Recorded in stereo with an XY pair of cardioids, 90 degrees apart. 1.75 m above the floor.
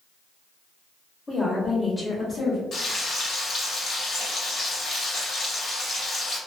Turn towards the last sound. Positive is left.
turn(degrees=70)